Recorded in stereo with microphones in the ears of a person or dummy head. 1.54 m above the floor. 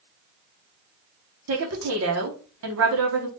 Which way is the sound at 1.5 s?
75° right (ahead or behind).